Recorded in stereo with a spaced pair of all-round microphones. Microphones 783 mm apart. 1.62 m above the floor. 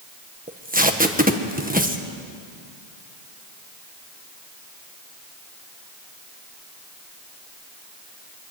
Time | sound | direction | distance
0.5 | tape being pulled | 10° right (ahead or behind) | 1.6 m